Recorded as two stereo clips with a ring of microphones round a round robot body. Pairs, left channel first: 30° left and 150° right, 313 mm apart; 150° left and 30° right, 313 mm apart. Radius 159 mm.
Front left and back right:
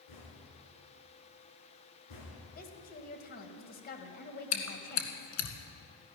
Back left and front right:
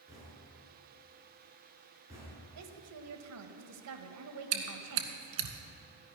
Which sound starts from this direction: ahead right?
A woman speaking, at 2.5 s.